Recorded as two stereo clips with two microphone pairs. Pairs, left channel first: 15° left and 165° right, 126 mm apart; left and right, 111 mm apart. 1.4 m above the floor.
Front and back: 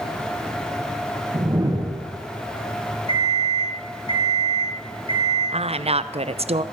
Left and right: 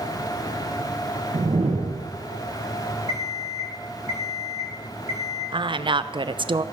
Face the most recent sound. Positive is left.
turn(degrees=-125)